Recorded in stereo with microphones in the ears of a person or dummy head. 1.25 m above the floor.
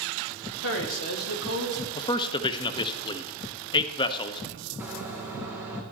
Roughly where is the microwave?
Centre.